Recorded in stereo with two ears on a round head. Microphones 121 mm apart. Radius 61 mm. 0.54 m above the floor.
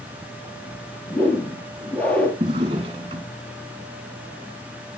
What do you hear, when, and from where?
1.1 s a whoosh: 10° left (ahead or behind), 2.5 m
2.4 s a drawer: 40° right (ahead or behind), 2.5 m